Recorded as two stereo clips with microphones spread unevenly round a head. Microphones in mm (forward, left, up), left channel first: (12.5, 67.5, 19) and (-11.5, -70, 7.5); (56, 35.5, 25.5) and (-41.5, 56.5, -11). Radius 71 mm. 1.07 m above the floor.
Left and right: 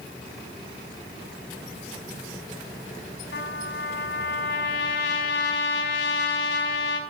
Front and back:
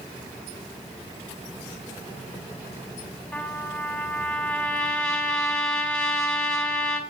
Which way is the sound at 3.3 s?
65° left.